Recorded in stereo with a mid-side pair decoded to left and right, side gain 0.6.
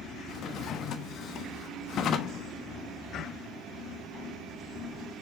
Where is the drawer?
55° left, 1.1 m.